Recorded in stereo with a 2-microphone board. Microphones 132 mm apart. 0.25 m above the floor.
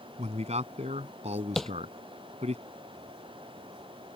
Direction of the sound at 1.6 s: Centre (ahead or behind).